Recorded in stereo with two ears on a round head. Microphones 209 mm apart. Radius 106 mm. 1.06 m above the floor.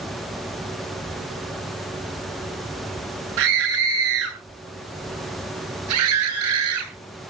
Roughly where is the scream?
Right.